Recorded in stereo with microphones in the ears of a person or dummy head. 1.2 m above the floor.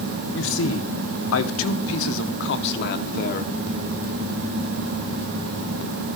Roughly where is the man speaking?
Left.